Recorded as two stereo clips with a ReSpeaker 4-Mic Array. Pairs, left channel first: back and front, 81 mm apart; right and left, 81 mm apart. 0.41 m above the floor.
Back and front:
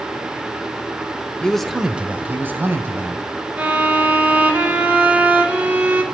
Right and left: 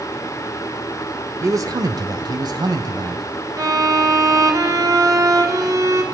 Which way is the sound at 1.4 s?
110° left.